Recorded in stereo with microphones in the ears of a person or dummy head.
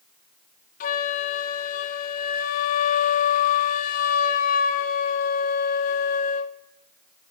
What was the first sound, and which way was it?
A flute, 45° left (ahead or behind).